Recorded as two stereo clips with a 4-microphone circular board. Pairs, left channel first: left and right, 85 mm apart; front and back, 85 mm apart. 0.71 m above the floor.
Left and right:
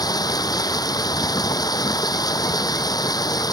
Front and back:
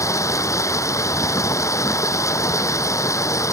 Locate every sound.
0.0 s running water: 50° left